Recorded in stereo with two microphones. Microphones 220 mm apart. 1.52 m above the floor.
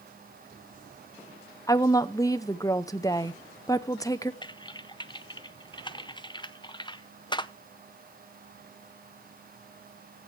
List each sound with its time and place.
1.7 s a woman speaking: 15° left (ahead or behind), 0.7 m
4.4 s typing on a keyboard: 20° left (ahead or behind), 0.5 m